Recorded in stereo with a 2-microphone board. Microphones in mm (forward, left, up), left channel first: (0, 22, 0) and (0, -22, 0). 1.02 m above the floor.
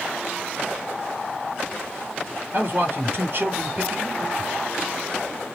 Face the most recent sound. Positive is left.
turn(degrees=-50)  # may be behind; listen again after turning